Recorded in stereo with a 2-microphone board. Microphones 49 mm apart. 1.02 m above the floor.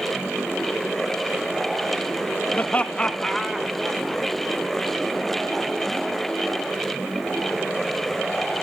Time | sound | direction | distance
2.5 | laughter | 40° left (ahead or behind) | 0.9 m